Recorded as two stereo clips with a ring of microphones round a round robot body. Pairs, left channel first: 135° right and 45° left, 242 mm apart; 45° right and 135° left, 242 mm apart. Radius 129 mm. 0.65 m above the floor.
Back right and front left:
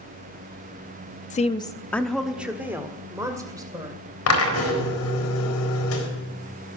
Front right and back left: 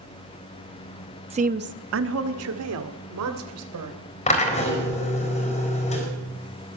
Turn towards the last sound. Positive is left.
turn(degrees=-110)